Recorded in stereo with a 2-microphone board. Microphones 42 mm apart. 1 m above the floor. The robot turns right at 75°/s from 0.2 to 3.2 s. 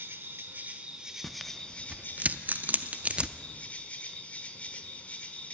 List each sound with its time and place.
0.0 s an insect: 85° right, 1.0 m; by 5.5 s 140° left, 1.0 m
1.2 s tearing paper: 5° left (ahead or behind), 0.5 m; by 3.4 s 25° right (ahead or behind), 0.5 m